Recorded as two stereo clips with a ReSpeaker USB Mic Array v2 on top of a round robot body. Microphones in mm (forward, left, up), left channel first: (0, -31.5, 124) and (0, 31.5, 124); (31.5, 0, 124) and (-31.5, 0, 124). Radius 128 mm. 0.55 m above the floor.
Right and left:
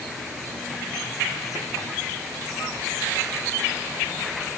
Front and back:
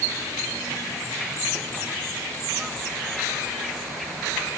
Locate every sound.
Only background noise.